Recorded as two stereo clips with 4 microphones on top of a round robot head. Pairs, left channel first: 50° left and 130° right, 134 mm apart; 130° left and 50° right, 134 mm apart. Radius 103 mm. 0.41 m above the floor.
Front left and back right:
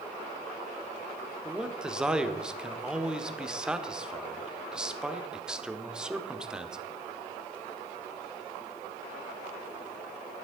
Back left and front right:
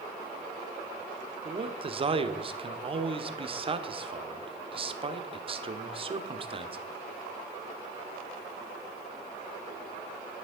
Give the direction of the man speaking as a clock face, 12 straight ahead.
2 o'clock.